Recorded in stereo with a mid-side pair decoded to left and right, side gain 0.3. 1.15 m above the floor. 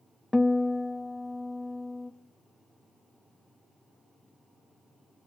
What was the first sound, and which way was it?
A guitar, 15° left.